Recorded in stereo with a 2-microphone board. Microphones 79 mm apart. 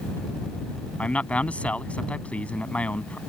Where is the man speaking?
15° left (ahead or behind).